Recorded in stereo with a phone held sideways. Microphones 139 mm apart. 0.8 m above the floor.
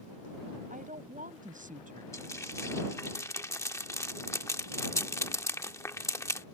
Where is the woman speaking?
75° right (ahead or behind).